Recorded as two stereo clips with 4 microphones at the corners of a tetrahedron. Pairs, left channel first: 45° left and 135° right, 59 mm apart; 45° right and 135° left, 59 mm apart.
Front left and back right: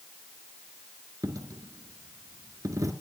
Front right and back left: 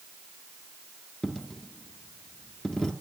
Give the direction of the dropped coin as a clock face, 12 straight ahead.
4 o'clock.